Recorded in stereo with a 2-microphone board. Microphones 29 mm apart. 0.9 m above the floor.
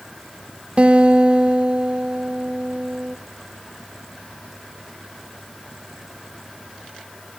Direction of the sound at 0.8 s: 40° right (ahead or behind).